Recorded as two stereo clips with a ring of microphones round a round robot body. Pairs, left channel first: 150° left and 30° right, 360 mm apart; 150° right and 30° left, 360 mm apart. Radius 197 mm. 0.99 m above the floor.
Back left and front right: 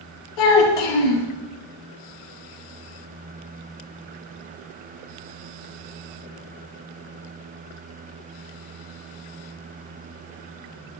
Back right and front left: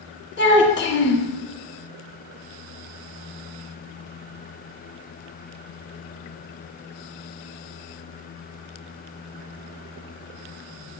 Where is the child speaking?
150° left, 1.5 m.